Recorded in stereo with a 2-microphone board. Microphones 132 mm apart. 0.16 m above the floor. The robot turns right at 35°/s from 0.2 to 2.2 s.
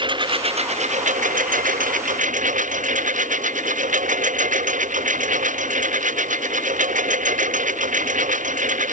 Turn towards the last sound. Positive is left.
turn(degrees=-75)